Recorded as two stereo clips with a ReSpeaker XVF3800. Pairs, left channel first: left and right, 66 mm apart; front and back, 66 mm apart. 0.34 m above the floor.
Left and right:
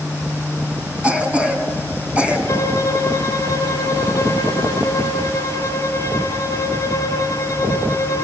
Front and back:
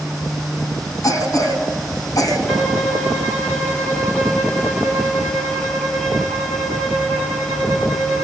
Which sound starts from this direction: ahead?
A cough, at 1.0 s.